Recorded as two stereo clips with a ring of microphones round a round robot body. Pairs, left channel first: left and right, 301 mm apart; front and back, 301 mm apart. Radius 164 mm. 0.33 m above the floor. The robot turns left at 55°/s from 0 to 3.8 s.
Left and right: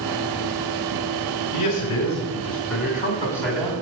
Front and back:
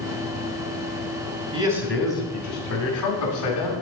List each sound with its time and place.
1.5 s a man speaking: 110° left, 2.5 m; by 3.7 s 10° right, 2.5 m